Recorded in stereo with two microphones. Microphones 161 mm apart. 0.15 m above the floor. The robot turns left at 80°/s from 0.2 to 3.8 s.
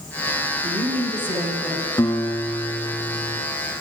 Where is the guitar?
25° left, 0.7 m; by 3.4 s 90° right, 0.7 m.